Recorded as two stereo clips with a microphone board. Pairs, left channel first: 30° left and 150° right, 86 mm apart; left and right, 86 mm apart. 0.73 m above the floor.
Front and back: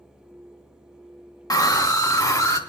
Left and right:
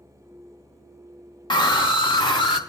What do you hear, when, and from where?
1.5 s a scream: 65° left, 1.7 m; by 2.6 s 80° left, 3 m